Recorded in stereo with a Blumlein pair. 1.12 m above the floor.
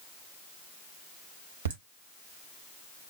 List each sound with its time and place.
1.6 s laughter: 65° right, 1.3 m